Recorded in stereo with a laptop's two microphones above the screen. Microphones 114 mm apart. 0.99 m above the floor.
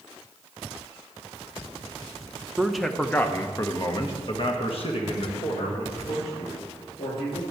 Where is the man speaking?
5° right (ahead or behind), 0.9 m; by 7.4 s 70° left (ahead or behind), 2.5 m.